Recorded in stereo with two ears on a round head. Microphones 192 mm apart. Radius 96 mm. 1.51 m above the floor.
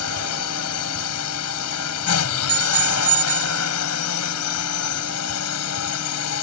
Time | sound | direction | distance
0.0 | a drone | 85° left | ?
2.5 | a bicycle bell | 75° right (ahead or behind) | ?